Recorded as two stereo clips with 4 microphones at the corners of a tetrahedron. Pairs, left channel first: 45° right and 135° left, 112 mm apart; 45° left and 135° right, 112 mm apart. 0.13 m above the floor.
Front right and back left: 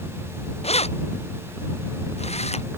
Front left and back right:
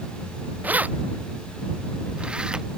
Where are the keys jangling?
60° right; by 2.7 s 55° right.